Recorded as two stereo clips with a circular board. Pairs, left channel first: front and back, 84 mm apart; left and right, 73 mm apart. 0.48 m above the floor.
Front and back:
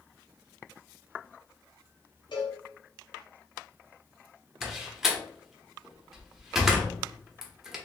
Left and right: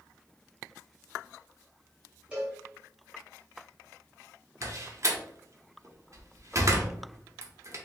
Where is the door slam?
100° right, 0.7 m.